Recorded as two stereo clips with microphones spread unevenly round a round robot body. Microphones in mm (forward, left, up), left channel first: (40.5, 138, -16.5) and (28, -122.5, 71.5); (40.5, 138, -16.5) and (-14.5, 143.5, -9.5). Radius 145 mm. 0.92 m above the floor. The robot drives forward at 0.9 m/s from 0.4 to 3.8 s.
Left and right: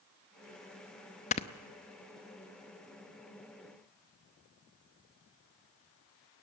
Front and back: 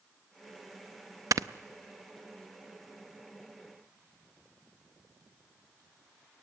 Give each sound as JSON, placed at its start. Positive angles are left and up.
{"t": 1.3, "sound": "snoring", "azimuth_deg": 150, "distance_m": 0.6}